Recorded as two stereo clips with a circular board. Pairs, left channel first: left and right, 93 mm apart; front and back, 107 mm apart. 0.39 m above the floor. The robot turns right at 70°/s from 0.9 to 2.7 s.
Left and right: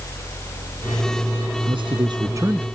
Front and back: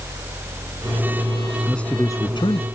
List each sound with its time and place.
1.7 s a man speaking: 90° right; by 2.6 s 20° right